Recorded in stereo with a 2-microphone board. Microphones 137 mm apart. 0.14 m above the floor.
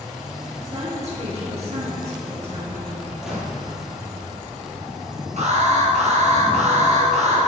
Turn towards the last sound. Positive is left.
turn(degrees=-55)  # may be behind; listen again after turning